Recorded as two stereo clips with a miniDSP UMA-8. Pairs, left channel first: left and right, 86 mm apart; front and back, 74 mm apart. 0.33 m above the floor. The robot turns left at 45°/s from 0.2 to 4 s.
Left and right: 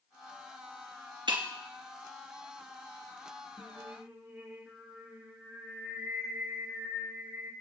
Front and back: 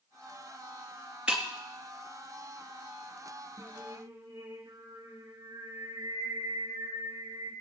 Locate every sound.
1.3 s breaking glass: 100° right, 2.5 m; by 1.4 s 110° right, 2.5 m
3.6 s singing: 145° right, 4 m; by 7.5 s 160° right, 4 m